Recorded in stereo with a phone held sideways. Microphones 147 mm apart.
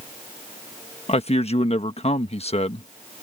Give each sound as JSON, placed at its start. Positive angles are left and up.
{"t": 1.1, "sound": "a man speaking", "side_deg": 45}